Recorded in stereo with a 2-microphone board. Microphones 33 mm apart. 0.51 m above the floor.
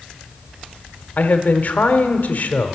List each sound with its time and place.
1.2 s a man speaking: 55° left (ahead or behind), 1.1 m